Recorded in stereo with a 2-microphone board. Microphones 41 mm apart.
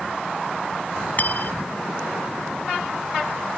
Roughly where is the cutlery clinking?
Left.